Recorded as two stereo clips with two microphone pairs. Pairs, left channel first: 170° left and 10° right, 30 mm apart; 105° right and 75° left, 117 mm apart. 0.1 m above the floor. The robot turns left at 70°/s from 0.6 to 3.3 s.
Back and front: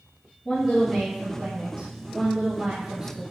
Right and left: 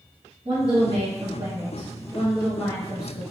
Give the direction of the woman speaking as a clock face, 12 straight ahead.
9 o'clock.